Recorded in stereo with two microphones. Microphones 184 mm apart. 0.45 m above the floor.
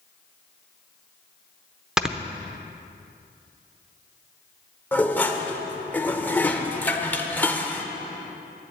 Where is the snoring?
5° right (ahead or behind), 0.7 m.